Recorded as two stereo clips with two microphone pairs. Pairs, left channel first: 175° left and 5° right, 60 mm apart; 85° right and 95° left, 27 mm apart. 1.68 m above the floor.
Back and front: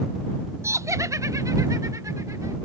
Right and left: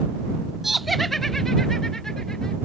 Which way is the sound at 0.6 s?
15° left.